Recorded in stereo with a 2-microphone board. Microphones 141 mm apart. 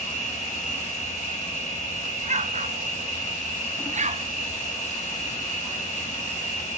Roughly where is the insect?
Left.